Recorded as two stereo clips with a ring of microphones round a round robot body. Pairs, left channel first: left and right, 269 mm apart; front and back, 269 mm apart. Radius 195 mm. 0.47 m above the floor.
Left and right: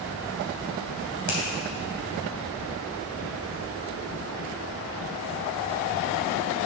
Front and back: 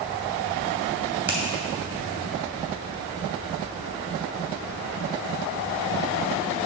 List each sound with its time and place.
1.3 s a finger snap: 95° left, 3 m